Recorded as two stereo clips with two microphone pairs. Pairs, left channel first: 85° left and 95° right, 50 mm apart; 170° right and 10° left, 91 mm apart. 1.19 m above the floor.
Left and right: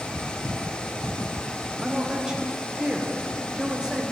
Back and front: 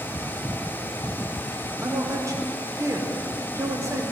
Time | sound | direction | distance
1.8 | a man speaking | 25° right | 0.8 m